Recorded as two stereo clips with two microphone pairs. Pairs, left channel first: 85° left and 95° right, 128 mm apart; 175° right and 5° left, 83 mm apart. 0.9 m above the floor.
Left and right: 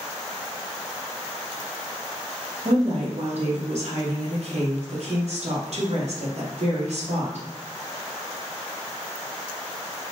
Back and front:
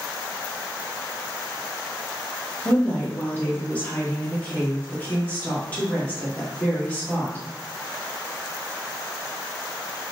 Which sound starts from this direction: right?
A woman speaking, at 2.6 s.